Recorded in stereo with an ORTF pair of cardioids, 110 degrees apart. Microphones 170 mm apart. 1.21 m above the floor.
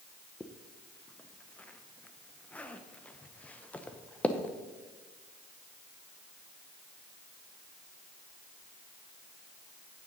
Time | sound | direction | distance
0.4 | a zipper | 10° left | 0.7 m